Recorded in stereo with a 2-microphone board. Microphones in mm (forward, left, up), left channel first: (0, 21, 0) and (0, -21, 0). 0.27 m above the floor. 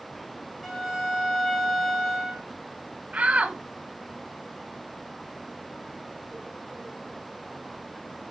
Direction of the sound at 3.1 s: 35° right (ahead or behind).